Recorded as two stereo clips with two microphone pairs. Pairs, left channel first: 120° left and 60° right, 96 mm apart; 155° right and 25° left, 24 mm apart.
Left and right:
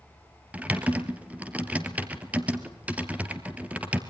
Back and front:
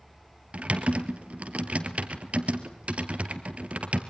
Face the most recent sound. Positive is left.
turn(degrees=15)